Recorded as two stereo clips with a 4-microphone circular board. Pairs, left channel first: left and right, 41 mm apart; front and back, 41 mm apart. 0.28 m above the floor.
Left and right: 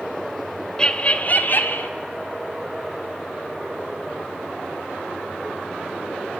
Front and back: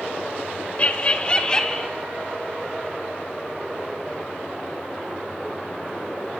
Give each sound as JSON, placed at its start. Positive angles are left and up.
{"t": 0.8, "sound": "laughter", "azimuth_deg": 35, "distance_m": 1.1}